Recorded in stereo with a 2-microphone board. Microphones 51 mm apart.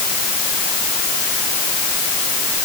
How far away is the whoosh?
No whoosh in this recording.